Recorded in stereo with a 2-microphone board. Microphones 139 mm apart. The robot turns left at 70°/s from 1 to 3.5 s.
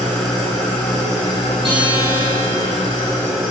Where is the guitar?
40° right, 3.5 m; by 2.7 s 110° right, 3.5 m.